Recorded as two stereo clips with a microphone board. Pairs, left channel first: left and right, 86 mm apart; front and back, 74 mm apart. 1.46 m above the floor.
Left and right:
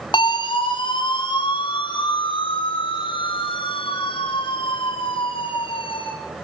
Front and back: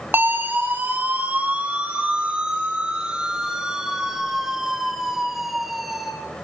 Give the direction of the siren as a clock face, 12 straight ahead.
8 o'clock.